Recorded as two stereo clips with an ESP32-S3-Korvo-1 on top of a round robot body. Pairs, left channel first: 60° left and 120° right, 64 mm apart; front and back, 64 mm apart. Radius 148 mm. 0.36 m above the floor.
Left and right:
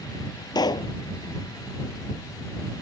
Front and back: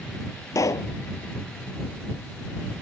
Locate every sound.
0.6 s a pop: 45° left